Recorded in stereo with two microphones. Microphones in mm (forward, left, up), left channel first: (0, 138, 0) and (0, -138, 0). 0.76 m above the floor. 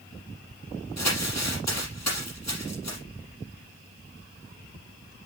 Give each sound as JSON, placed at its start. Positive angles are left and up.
{"t": 1.0, "sound": "crumpling", "side_deg": 80, "distance_m": 5.5}